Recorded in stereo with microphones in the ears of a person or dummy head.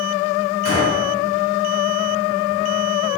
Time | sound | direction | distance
0.7 | a gunshot | 60° left (ahead or behind) | 2.5 m